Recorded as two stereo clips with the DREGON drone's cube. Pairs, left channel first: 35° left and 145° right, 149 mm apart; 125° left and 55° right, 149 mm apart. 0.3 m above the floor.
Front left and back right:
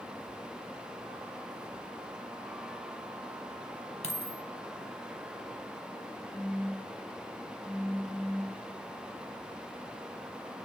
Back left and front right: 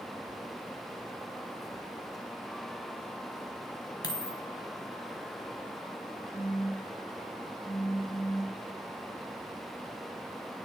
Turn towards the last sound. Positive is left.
turn(degrees=45)